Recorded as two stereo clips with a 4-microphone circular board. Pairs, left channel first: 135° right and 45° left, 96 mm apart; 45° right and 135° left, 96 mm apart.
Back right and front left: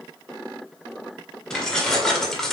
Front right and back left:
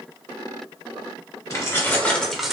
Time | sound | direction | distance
1.5 | keys jangling | 60° right | 0.9 m